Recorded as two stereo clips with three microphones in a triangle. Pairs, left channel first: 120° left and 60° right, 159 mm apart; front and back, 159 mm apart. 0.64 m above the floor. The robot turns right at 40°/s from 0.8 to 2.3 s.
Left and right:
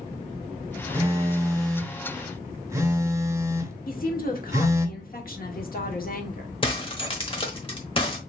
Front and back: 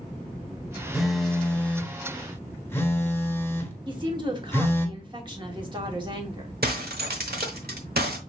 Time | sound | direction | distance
0.9 | a phone buzzing | 95° right | 0.8 m
3.9 | a woman speaking | 125° left | 1.3 m
6.6 | breaking glass | 175° left | 1.0 m